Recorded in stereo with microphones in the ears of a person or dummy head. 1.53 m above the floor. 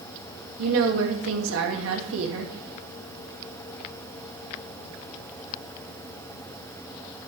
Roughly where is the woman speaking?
Right.